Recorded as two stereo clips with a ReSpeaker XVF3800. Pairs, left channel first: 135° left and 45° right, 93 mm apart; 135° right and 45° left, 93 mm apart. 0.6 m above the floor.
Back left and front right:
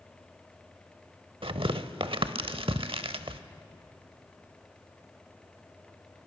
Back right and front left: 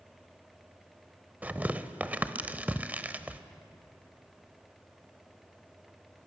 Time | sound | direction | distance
1.4 | tearing paper | 30° right | 0.7 m